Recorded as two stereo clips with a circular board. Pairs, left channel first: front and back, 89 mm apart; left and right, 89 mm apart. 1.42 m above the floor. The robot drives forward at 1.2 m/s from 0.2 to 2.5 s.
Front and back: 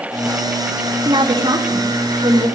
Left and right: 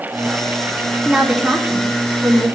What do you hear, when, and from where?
1.1 s a woman speaking: 170° right, 1.9 m; by 2.5 s 175° right, 3.5 m